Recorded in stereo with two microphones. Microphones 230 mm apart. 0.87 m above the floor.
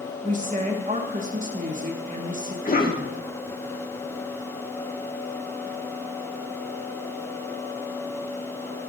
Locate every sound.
0.2 s a woman speaking: 35° right (ahead or behind), 1.4 m
2.6 s a cough: 40° left (ahead or behind), 1.6 m